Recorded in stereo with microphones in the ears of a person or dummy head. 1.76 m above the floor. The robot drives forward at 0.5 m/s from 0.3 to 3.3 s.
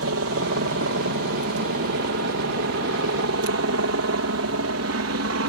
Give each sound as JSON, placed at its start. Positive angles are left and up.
{"t": 0.0, "sound": "a helicopter", "side_deg": -65}